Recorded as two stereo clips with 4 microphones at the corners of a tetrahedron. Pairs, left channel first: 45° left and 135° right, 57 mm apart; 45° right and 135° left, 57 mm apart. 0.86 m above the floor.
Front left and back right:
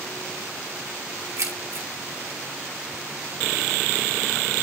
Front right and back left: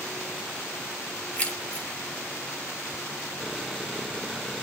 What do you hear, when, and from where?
1.4 s keys jangling: 110° right, 2.5 m